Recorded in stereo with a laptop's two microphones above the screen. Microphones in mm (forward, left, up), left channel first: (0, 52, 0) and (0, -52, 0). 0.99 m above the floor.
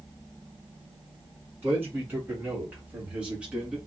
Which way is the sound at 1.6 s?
15° right (ahead or behind).